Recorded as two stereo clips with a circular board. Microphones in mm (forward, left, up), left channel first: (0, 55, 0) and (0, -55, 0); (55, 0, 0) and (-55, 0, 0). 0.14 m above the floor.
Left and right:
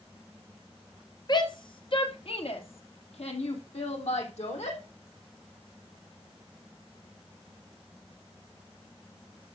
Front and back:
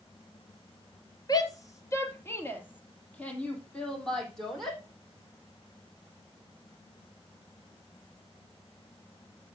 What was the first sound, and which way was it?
A shout, 45° left.